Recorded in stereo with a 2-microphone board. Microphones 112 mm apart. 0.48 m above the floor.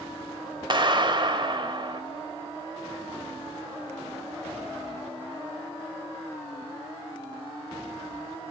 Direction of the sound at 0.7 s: 45° right (ahead or behind).